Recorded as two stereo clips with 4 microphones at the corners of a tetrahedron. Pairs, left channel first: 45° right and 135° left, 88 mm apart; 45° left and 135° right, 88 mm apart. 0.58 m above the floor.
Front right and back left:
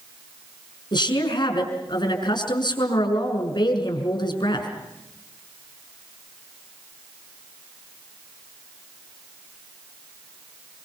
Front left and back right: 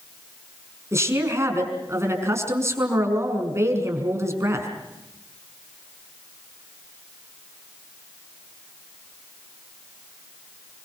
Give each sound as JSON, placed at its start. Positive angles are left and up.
{"t": 0.9, "sound": "a woman speaking", "azimuth_deg": -75, "distance_m": 5.5}